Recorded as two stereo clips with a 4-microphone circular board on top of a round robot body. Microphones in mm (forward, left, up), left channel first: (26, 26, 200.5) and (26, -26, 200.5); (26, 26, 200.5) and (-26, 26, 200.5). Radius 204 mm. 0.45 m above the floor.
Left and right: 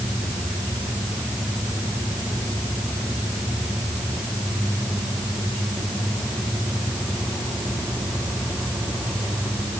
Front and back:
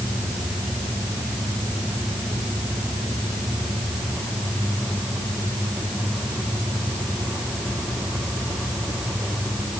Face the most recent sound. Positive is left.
No sound to turn to.